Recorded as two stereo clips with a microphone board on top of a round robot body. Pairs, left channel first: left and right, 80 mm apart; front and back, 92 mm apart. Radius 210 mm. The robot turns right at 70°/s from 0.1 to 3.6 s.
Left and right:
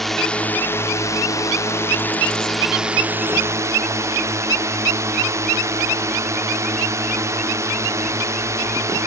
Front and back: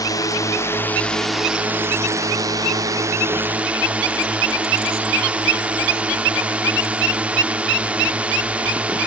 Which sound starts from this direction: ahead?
A drone, at 0.0 s.